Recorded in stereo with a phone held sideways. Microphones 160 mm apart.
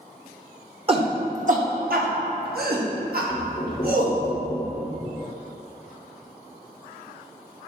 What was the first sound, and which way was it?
A shout, 35° right (ahead or behind).